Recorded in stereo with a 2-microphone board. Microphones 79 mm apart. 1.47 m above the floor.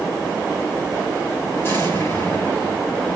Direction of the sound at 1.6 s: 30° left (ahead or behind).